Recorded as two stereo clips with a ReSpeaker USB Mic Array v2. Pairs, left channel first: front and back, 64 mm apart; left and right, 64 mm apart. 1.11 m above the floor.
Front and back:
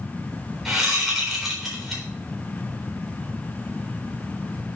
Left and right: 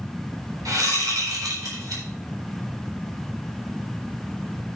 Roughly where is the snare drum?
I don't hear a snare drum.